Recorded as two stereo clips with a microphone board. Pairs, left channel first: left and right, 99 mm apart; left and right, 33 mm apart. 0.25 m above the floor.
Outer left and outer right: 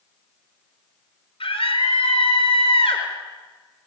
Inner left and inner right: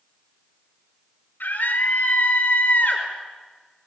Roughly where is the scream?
Left.